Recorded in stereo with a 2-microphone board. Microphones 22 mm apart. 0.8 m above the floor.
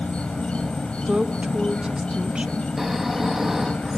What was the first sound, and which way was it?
An insect, 55° left (ahead or behind).